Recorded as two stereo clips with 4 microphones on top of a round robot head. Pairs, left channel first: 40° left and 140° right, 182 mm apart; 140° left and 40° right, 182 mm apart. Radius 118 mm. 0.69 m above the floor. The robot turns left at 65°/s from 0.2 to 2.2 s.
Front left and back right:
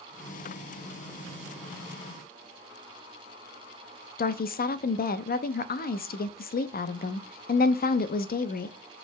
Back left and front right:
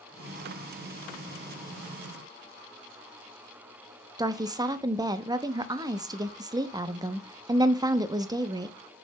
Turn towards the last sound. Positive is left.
turn(degrees=25)